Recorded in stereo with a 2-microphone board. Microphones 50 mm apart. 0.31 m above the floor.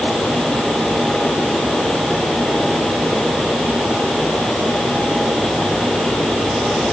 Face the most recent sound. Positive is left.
No sound to turn to.